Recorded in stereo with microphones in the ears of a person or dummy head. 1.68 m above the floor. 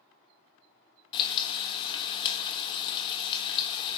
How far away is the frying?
About 1.4 m.